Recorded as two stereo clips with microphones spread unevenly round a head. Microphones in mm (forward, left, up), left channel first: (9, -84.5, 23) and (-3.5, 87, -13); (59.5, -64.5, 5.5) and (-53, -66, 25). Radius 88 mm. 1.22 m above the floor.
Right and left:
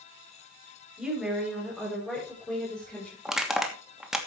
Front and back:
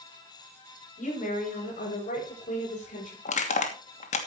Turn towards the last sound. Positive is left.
turn(degrees=10)